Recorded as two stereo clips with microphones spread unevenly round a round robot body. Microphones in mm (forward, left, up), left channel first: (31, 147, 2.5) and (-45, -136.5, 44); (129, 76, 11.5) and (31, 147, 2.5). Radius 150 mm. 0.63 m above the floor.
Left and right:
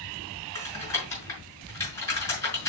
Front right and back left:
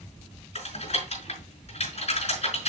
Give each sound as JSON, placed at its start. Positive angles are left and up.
{"t": 0.6, "sound": "typing on a keyboard", "azimuth_deg": -5, "distance_m": 5.5}